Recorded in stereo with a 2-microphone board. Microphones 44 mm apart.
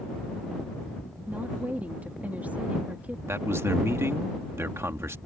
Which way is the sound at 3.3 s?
80° right.